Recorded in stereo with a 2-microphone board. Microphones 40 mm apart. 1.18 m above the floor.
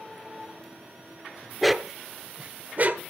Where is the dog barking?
Centre (ahead or behind), 0.8 m; by 3.0 s 45° right (ahead or behind), 1.2 m.